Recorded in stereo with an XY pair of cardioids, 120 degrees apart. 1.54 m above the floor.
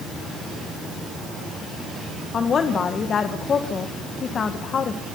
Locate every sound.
2.3 s a woman speaking: 40° left, 1.6 m